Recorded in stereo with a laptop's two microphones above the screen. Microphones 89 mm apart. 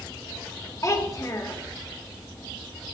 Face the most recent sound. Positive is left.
turn(degrees=40)  # may be behind; listen again after turning